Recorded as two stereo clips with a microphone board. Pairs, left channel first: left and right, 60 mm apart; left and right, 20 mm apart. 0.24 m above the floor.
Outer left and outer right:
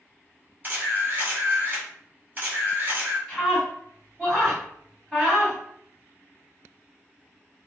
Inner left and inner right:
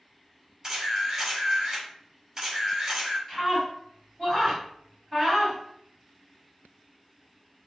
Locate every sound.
0.6 s a camera shutter: 30° right (ahead or behind), 1.4 m
3.3 s a scream: centre (ahead or behind), 1.7 m